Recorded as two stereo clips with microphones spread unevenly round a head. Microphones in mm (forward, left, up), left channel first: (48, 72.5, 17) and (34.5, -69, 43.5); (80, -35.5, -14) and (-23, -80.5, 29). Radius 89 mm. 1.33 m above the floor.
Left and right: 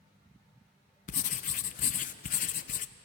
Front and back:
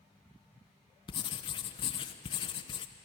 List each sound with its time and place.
1.1 s writing: 65° left, 0.8 m